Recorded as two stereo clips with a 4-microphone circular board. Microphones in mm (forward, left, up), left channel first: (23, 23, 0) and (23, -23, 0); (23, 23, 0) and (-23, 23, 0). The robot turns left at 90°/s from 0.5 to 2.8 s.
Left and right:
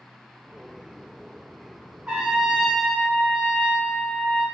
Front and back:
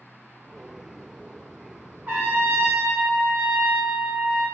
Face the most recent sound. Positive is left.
turn(degrees=150)